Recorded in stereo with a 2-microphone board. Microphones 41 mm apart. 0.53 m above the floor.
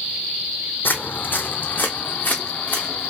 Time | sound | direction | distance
0.8 | footsteps | 55° left (ahead or behind) | 0.9 m